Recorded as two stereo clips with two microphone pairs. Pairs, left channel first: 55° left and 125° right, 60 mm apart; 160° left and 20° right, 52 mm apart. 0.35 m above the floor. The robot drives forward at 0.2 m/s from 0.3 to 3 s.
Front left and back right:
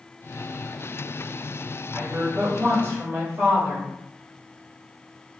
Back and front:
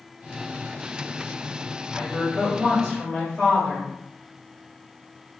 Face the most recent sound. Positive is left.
turn(degrees=-120)